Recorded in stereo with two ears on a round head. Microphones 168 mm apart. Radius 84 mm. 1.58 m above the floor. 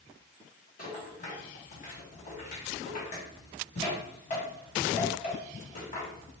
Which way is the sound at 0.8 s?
45° left (ahead or behind).